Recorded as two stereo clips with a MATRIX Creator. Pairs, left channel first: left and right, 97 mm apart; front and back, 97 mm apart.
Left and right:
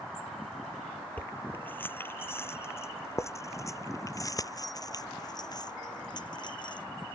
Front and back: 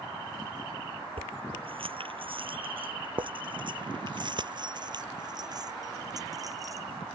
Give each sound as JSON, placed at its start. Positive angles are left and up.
{"t": 1.2, "sound": "keys jangling", "azimuth_deg": 160}